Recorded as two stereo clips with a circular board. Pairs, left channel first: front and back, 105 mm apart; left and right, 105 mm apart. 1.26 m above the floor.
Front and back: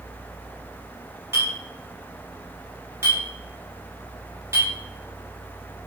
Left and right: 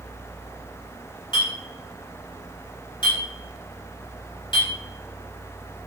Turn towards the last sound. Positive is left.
turn(degrees=120)